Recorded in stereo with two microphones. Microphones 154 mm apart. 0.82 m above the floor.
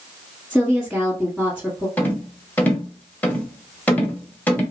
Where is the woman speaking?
5° right (ahead or behind), 1.1 m.